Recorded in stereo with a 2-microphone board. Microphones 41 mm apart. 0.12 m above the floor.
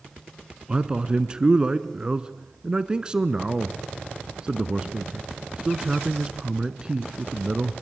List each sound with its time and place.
0.7 s a man speaking: 20° right (ahead or behind), 1.2 m